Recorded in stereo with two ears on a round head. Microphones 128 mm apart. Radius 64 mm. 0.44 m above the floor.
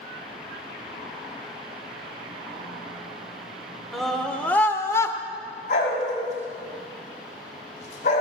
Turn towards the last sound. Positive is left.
turn(degrees=50)  # may be behind; listen again after turning